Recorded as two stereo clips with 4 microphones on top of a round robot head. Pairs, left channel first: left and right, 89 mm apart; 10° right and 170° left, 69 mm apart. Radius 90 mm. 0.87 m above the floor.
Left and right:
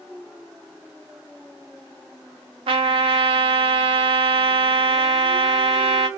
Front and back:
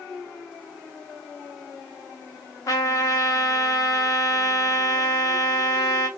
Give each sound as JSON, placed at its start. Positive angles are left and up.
{"t": 2.7, "sound": "a trumpet", "azimuth_deg": -60, "distance_m": 0.6}